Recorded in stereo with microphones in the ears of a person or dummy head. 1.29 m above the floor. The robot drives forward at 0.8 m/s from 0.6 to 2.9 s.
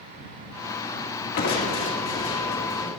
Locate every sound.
1.4 s crushing: 50° left (ahead or behind), 1.9 m; by 2.9 s 30° left (ahead or behind), 3 m